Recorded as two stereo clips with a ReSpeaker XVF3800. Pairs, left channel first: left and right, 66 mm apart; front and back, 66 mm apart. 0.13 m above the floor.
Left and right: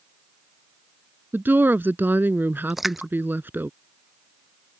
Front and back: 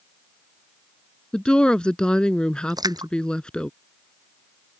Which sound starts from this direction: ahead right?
A woman speaking, at 1.3 s.